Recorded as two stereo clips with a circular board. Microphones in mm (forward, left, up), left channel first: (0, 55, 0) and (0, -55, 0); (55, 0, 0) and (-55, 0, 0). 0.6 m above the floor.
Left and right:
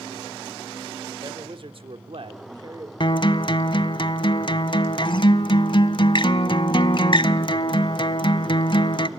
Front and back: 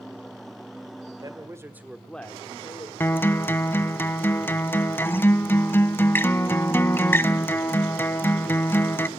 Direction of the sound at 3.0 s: 65° left.